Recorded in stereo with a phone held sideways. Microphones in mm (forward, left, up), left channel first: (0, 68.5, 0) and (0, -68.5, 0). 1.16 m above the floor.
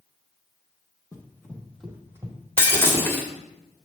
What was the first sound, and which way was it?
Running footsteps, 25° left (ahead or behind).